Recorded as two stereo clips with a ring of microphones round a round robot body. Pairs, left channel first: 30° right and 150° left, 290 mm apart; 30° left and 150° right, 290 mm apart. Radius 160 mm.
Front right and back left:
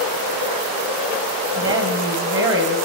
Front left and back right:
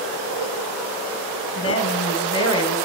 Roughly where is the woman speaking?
Left.